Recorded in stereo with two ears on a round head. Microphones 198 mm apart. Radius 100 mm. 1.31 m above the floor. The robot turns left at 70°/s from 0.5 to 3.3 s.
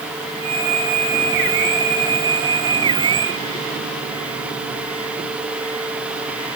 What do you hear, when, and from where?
Only background noise.